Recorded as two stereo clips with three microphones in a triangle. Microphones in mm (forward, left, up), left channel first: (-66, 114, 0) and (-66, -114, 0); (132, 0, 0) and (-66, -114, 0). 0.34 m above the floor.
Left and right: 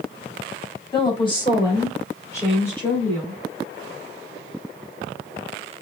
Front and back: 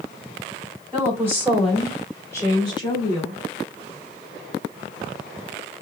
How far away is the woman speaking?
About 1.8 m.